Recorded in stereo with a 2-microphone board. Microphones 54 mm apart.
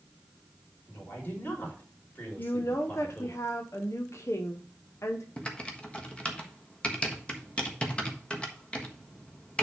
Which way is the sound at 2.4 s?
60° left (ahead or behind).